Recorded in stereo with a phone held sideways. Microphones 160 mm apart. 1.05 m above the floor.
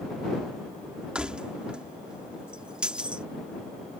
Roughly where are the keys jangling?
Centre.